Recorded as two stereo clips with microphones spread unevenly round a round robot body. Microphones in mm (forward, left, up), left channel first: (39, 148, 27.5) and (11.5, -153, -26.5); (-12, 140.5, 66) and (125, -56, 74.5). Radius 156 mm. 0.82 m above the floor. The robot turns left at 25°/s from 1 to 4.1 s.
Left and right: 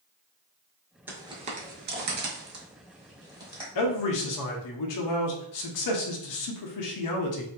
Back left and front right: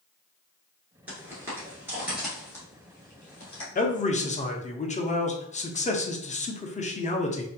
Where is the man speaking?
80° left, 0.7 m; by 7.5 s 70° left, 0.7 m.